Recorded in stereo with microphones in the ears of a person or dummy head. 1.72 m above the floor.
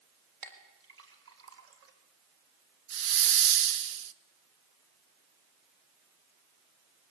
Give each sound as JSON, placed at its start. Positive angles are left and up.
{"t": 0.4, "sound": "a clink", "side_deg": -70, "distance_m": 4.0}
{"t": 2.9, "sound": "a hiss", "side_deg": -60, "distance_m": 0.7}